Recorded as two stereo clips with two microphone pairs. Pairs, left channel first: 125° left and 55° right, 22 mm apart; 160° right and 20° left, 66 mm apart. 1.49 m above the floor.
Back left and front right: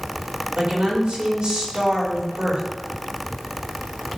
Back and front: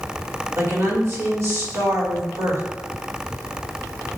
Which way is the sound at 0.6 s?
25° right.